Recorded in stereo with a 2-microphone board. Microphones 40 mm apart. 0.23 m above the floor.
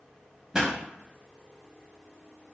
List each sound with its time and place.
0.5 s a pop: 15° right (ahead or behind), 0.7 m